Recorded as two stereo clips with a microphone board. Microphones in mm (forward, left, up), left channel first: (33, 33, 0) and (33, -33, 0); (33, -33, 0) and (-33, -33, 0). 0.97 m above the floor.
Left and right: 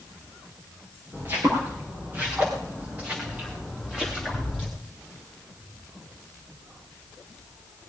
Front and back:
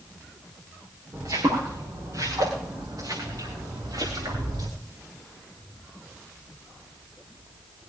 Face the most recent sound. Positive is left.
turn(degrees=-170)